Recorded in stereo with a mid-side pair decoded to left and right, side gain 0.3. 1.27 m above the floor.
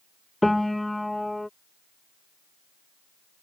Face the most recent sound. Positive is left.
turn(degrees=15)